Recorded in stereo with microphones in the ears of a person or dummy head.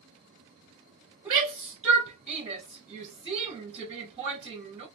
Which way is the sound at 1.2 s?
15° right (ahead or behind).